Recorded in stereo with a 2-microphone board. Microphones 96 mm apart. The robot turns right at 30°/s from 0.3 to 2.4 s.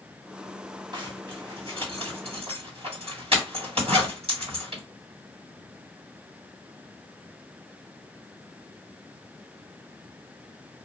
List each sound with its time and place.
0.9 s a zipper: 45° right (ahead or behind), 1.9 m; by 4.8 s 65° right (ahead or behind), 1.9 m